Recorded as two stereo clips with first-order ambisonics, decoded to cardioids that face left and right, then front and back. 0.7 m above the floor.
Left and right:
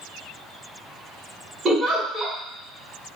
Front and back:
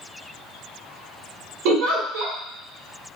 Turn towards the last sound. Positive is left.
turn(degrees=-170)